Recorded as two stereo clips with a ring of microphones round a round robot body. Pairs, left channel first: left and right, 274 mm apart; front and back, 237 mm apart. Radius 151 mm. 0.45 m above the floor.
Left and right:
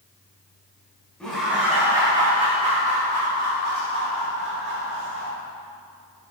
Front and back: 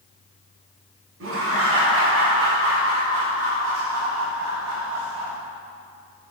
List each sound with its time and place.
1.2 s laughter: 175° left, 2.5 m; by 5.3 s 135° right, 5 m